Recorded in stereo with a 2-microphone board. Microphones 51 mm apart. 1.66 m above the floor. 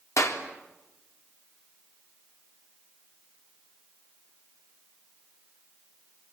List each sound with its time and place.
0.2 s a clap: 70° left (ahead or behind), 3.5 m